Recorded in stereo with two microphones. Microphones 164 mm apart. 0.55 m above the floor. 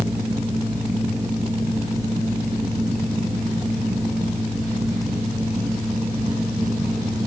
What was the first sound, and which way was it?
Only background noise.